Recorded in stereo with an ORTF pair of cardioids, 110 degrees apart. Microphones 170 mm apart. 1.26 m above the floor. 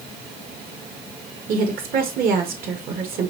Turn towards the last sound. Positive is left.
turn(degrees=-60)